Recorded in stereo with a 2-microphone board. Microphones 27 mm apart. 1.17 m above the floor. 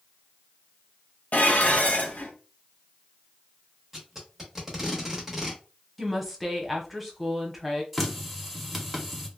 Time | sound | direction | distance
1.3 | dishes clattering | 70° left (ahead or behind) | 0.7 m
3.9 | tape being pulled | 10° right (ahead or behind) | 0.9 m
6.0 | a woman speaking | centre (ahead or behind) | 0.8 m
7.9 | a running tap | centre (ahead or behind) | 0.6 m